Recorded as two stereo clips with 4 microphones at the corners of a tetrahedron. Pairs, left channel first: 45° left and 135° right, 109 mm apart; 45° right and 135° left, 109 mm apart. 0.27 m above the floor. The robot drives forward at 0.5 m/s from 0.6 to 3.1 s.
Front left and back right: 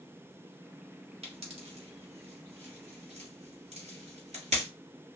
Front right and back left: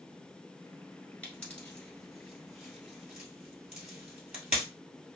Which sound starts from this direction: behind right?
A pop, at 1.2 s.